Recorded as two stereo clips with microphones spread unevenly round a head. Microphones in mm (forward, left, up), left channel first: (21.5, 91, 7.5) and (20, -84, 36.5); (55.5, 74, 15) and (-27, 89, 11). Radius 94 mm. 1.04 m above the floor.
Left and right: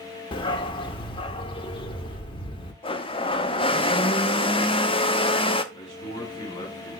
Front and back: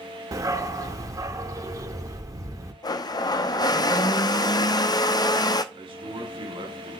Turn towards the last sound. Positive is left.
turn(degrees=160)